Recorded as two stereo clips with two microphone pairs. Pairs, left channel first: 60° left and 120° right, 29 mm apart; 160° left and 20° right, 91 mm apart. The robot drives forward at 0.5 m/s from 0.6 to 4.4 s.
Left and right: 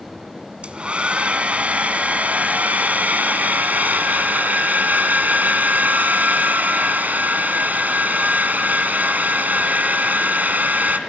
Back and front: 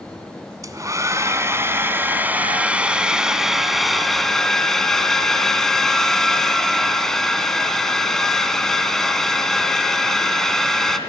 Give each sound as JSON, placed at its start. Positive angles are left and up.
{"t": 0.6, "sound": "a hair dryer", "azimuth_deg": -70, "distance_m": 2.5}